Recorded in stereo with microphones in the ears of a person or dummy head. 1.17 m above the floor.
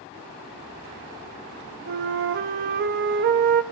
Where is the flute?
55° right (ahead or behind), 0.9 m.